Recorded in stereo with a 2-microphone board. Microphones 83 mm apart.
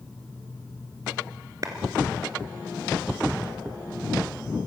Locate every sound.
1.6 s a clap: 45° right (ahead or behind), 2.0 m